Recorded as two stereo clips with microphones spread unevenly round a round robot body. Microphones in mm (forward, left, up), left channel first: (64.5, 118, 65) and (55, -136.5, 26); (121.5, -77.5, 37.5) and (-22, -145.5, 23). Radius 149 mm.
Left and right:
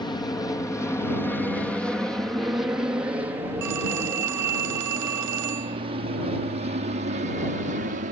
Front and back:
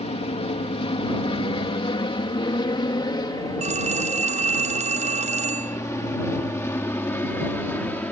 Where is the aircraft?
15° left; by 8.1 s 50° right.